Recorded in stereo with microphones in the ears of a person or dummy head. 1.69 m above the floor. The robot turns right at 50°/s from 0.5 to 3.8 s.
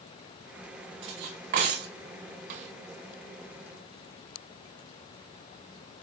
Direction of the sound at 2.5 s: 45° right (ahead or behind).